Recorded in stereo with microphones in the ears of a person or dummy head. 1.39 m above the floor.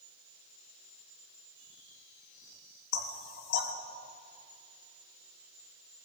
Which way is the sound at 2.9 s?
65° left (ahead or behind).